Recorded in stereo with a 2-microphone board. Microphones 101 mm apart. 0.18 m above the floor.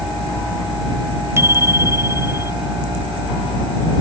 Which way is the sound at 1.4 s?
25° right (ahead or behind).